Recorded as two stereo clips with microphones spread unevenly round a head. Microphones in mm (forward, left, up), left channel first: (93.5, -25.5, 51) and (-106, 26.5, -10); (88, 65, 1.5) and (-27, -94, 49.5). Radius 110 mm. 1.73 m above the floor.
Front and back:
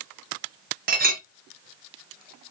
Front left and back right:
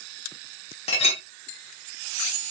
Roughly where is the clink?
Behind left.